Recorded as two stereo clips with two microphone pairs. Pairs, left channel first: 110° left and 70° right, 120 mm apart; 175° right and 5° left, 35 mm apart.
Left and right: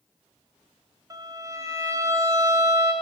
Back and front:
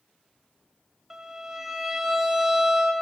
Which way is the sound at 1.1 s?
55° right.